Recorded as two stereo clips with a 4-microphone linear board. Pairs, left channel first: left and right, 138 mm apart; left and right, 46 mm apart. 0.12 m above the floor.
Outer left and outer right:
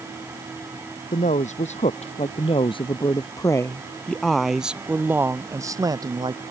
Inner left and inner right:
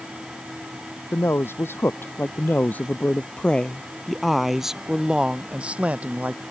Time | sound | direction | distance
1.1 | a man speaking | 65° left (ahead or behind) | ?